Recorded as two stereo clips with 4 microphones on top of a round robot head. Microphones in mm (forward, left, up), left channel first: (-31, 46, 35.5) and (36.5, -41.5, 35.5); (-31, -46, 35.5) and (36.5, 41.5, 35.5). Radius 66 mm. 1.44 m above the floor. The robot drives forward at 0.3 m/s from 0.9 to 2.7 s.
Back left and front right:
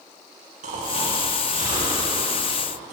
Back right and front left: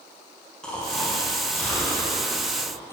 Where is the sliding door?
No sliding door in this recording.